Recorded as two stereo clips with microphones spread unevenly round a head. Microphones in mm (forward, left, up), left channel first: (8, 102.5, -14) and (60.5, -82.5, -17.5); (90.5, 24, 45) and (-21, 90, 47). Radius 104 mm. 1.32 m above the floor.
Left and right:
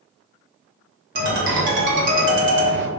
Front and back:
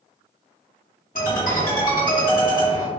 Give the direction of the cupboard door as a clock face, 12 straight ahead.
I don't hear a cupboard door.